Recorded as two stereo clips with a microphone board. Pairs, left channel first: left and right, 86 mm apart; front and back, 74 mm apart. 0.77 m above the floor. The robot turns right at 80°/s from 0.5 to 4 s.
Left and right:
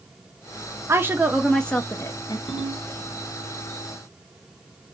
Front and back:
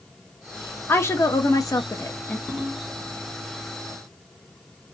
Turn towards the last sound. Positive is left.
turn(degrees=-155)